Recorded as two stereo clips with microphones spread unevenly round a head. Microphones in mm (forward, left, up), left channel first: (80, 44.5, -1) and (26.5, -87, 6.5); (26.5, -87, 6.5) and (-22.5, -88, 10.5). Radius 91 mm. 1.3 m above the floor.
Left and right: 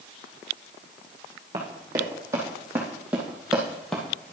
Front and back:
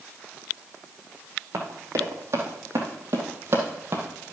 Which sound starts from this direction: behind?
Running footsteps, at 1.5 s.